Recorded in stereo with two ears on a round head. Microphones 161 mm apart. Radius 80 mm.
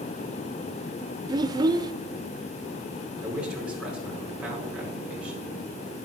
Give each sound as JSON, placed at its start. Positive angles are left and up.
{"t": 1.3, "sound": "a child speaking", "side_deg": -20, "distance_m": 0.5}
{"t": 3.2, "sound": "a man speaking", "side_deg": -5, "distance_m": 5.0}